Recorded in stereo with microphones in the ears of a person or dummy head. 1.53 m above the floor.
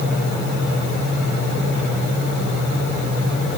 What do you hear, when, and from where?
Only background noise.